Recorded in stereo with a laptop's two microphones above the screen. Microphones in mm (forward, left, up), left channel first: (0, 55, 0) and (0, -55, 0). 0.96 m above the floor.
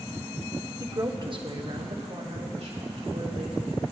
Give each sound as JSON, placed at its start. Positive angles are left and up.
{"t": 0.8, "sound": "a woman speaking", "side_deg": -25, "distance_m": 0.9}